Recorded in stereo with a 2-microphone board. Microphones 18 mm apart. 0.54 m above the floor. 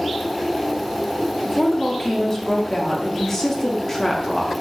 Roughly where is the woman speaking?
Left.